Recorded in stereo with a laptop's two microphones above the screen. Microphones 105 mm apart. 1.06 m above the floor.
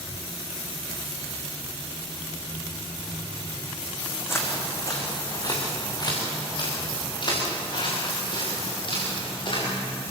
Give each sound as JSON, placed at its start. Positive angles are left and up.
{"t": 4.3, "sound": "footsteps", "side_deg": 25, "distance_m": 3.5}